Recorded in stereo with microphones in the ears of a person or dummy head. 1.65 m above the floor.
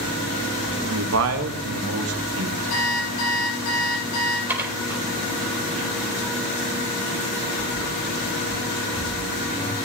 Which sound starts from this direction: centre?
Dishes clattering, at 4.5 s.